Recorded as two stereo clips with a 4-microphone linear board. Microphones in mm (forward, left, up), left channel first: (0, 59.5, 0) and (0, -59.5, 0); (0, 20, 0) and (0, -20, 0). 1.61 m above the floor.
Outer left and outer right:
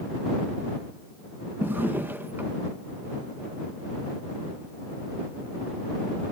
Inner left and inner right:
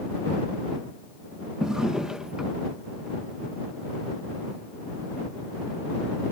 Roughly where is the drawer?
Centre.